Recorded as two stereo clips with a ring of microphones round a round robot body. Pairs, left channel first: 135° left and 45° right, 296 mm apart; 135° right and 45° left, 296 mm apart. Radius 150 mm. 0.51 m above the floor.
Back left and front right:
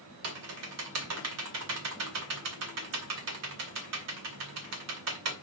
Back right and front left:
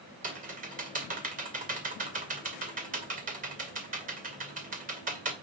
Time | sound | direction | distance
0.2 | typing on a keyboard | 15° right | 2 m